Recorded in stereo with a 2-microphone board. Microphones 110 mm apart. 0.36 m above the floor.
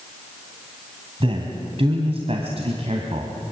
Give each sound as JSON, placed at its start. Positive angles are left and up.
{"t": 1.2, "sound": "a man speaking", "side_deg": -60, "distance_m": 2.5}